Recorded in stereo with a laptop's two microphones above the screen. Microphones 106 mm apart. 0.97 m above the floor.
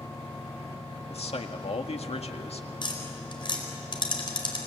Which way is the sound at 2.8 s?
45° left (ahead or behind).